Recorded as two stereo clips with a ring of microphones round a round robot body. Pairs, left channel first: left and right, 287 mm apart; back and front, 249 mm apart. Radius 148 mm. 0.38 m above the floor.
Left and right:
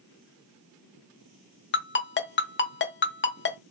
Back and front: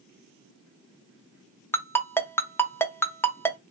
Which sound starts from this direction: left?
A ringtone, at 1.7 s.